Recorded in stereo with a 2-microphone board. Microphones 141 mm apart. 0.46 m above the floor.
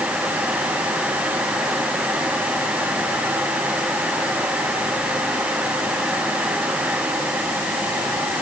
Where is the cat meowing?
No cat meowing in this recording.